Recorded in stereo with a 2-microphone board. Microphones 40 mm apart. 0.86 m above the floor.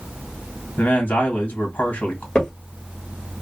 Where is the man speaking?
50° left (ahead or behind), 1.5 m.